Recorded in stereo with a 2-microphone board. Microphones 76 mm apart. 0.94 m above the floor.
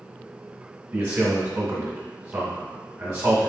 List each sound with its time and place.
0.9 s a man speaking: 20° right (ahead or behind), 1.7 m